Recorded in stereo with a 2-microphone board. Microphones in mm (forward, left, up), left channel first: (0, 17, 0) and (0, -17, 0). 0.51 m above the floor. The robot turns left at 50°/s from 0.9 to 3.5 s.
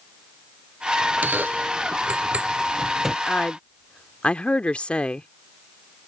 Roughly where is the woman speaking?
Left.